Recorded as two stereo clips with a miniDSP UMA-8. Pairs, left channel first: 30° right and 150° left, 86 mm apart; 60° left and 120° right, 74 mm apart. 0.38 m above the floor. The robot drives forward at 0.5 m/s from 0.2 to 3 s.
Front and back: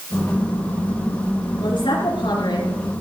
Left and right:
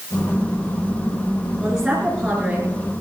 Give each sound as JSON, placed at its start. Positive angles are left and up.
{"t": 1.6, "sound": "a woman speaking", "azimuth_deg": -35, "distance_m": 5.0}